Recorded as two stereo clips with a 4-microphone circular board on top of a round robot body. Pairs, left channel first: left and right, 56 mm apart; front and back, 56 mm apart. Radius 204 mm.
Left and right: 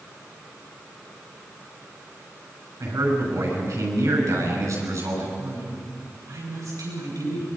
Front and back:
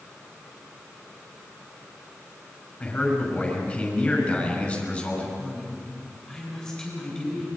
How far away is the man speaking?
About 6.5 m.